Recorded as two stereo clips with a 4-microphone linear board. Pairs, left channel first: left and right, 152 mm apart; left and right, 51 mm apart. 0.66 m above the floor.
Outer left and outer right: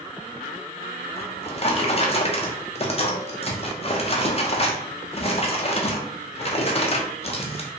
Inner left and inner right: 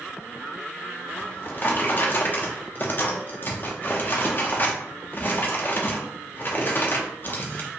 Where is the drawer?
40° left (ahead or behind), 0.5 m.